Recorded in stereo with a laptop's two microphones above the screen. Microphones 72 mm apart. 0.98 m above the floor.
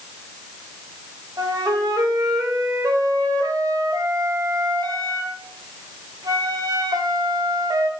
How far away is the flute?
About 1.4 m.